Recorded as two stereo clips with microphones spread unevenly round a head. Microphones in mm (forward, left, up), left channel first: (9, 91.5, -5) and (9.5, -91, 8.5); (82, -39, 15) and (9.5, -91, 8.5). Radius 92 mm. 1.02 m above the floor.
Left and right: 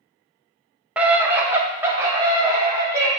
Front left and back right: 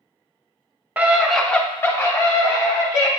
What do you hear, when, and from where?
1.0 s a scream: 175° right, 0.7 m; by 3.1 s 10° right, 1.4 m